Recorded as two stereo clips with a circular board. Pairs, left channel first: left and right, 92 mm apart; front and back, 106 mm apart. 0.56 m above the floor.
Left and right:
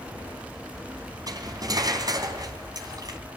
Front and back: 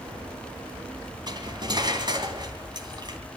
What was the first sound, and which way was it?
Cutlery clinking, 135° right.